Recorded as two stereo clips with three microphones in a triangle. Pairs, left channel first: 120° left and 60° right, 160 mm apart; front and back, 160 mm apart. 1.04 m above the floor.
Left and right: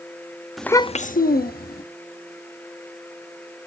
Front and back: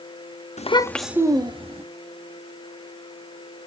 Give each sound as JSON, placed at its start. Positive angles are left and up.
{"t": 0.6, "sound": "a child speaking", "azimuth_deg": 30, "distance_m": 0.6}